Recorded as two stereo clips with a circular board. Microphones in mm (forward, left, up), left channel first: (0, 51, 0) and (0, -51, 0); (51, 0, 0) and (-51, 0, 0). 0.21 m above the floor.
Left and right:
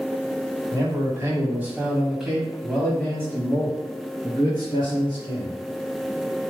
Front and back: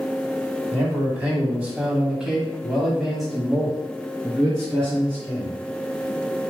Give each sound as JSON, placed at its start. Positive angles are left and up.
{"t": 0.7, "sound": "a man speaking", "azimuth_deg": -115, "distance_m": 1.5}